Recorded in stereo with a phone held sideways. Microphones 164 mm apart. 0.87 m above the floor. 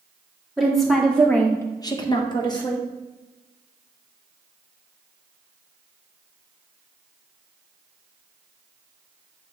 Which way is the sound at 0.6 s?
Centre (ahead or behind).